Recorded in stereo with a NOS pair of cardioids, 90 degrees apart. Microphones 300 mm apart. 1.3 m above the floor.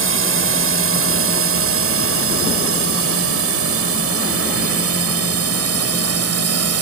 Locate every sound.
0.0 s a drone: 45° right; by 6.8 s 55° right